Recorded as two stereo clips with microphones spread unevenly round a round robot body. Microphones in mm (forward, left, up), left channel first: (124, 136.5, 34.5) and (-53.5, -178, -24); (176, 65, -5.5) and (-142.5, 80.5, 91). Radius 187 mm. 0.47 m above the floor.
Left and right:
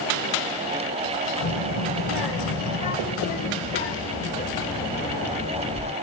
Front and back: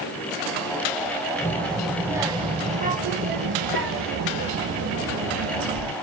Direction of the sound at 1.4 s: 70° left.